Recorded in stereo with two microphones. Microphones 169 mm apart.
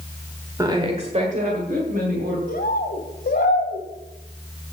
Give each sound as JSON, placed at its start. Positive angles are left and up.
{"t": 0.6, "sound": "a woman speaking", "side_deg": -20, "distance_m": 1.3}
{"t": 2.5, "sound": "a bird", "side_deg": 65, "distance_m": 1.5}